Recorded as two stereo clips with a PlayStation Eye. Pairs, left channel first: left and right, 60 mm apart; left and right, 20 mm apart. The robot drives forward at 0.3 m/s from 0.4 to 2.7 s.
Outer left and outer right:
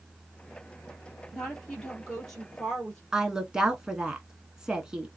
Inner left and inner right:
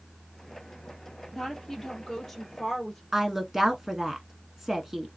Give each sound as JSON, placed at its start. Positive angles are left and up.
{"t": 1.3, "sound": "a woman speaking", "side_deg": 5, "distance_m": 2.0}
{"t": 3.1, "sound": "a woman speaking", "side_deg": -10, "distance_m": 1.0}